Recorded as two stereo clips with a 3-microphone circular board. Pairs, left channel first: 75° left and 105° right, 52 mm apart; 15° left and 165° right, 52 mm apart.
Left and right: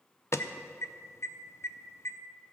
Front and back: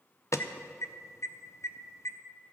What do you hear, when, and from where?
0.3 s an alarm: 40° left, 0.7 m